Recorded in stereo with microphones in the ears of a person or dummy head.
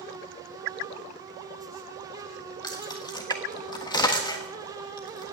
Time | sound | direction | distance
2.6 | keys jangling | 25° left (ahead or behind) | 1.4 m